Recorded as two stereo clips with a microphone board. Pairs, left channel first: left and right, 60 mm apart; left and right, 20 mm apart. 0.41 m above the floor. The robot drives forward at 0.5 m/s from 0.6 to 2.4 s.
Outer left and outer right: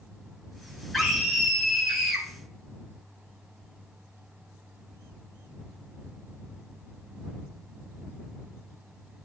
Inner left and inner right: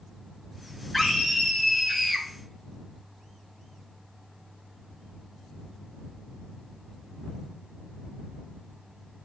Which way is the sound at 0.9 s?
Centre (ahead or behind).